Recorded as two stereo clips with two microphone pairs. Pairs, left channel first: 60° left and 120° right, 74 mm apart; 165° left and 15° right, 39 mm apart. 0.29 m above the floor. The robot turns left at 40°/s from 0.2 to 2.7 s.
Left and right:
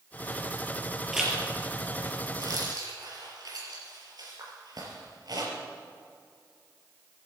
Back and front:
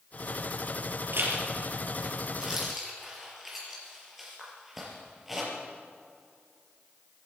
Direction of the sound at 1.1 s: 35° right.